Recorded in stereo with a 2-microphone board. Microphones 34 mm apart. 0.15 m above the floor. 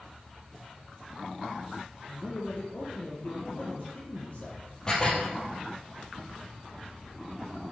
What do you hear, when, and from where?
2.1 s a man speaking: 40° left (ahead or behind), 5 m
4.9 s dishes clattering: 25° left (ahead or behind), 3.5 m